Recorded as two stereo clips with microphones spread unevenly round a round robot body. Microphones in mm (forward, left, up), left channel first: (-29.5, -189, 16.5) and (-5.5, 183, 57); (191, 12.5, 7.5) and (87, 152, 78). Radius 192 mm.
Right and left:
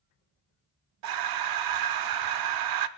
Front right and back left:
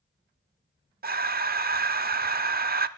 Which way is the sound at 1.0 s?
75° left.